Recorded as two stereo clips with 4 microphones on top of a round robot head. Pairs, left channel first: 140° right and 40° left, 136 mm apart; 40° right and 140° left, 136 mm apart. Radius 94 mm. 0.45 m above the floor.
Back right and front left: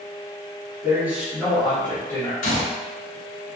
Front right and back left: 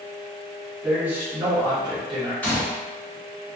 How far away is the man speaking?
About 1.1 m.